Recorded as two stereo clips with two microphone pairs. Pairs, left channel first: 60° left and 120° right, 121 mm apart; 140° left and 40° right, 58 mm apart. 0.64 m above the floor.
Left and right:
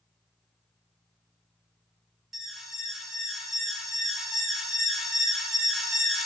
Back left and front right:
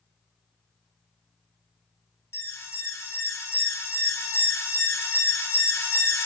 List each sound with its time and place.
2.3 s an alarm: 155° left, 0.8 m